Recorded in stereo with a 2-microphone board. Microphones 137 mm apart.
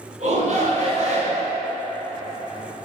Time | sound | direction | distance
0.2 | a shout | 60° right (ahead or behind) | 3 m